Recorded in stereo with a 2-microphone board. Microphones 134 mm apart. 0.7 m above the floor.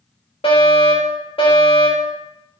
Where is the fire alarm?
45° left (ahead or behind), 4 m.